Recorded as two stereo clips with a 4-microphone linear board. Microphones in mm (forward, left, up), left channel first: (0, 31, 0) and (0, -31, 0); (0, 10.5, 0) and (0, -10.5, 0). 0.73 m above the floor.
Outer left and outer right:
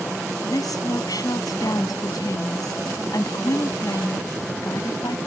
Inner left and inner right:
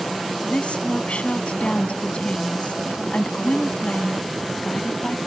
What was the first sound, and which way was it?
A woman speaking, 85° left.